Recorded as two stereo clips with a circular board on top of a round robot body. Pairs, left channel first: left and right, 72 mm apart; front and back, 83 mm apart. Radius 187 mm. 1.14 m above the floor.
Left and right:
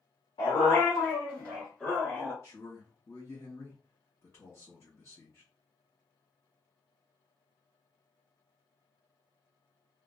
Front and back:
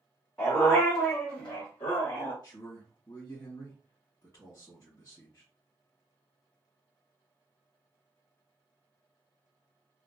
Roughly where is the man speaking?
Ahead left.